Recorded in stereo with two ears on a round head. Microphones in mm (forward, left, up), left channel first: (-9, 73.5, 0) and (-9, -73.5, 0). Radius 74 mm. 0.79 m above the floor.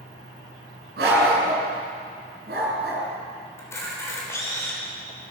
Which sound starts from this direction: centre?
A camera shutter, at 3.6 s.